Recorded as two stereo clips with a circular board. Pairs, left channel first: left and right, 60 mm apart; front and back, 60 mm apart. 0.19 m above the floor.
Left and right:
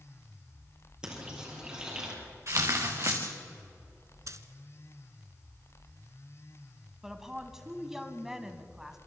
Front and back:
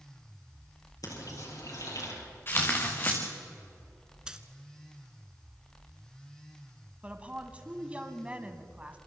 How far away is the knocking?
I don't hear knocking.